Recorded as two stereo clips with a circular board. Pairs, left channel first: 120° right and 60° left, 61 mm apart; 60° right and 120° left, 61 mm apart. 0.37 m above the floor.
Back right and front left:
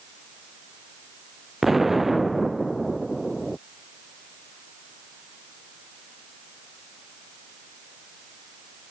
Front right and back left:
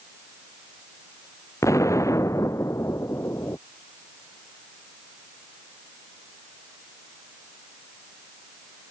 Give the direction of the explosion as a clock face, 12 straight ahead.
1 o'clock.